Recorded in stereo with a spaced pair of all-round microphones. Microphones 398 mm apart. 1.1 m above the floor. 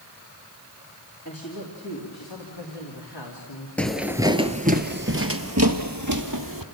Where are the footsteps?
5° left (ahead or behind), 1.1 m; by 6.6 s 50° right (ahead or behind), 1.8 m.